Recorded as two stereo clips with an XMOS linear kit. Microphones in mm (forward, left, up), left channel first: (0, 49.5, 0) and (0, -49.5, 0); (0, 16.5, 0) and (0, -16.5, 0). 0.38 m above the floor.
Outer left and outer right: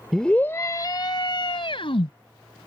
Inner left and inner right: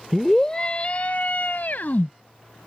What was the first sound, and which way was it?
A scream, centre (ahead or behind).